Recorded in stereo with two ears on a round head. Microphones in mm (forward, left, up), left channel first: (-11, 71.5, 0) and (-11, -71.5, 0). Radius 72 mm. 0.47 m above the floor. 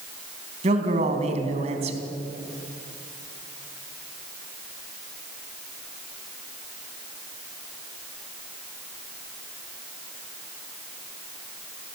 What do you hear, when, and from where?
0.6 s a man speaking: 40° right (ahead or behind), 3.5 m